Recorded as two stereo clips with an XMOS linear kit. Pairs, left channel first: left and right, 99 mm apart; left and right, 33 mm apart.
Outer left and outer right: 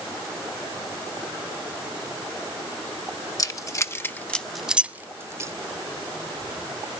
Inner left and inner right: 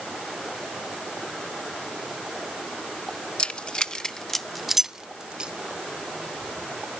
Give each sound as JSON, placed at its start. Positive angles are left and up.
{"t": 3.4, "sound": "keys jangling", "side_deg": 35, "distance_m": 1.1}